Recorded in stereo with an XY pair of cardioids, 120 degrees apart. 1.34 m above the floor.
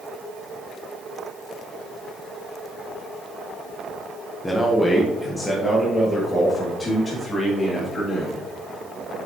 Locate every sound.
4.4 s a man speaking: 10° left, 1.0 m; by 8.4 s 25° left, 3.5 m